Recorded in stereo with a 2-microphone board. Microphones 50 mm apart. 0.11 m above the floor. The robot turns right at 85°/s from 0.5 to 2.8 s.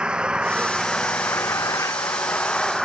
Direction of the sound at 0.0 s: 20° right.